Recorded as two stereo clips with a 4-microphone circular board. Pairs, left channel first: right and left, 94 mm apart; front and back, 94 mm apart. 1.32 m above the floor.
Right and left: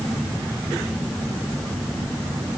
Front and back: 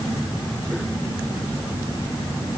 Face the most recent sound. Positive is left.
No sound to turn to.